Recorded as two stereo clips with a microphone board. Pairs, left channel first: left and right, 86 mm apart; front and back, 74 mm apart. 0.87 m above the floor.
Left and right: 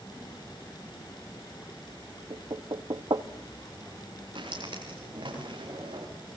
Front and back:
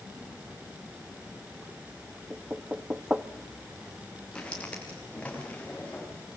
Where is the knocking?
110° right, 1.0 m.